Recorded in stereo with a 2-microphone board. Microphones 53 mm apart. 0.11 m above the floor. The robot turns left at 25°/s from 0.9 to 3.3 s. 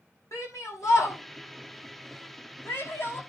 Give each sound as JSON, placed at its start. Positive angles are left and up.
{"t": 0.3, "sound": "a shout", "side_deg": 75, "distance_m": 6.5}